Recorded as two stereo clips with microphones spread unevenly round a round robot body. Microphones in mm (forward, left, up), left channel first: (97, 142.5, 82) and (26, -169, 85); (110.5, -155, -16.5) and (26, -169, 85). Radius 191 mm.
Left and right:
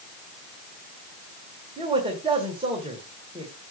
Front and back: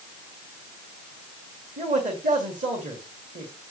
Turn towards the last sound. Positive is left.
turn(degrees=180)